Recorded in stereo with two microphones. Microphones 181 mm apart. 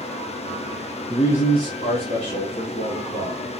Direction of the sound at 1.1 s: 15° left (ahead or behind).